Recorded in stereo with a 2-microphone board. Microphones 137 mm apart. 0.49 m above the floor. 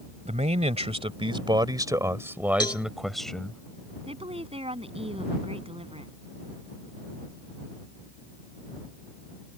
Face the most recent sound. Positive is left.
turn(degrees=-45)  # may be behind; listen again after turning